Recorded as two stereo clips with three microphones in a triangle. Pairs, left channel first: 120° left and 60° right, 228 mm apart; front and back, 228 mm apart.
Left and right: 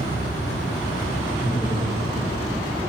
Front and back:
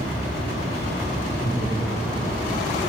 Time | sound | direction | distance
1.4 | laughter | 45° left | 7.5 m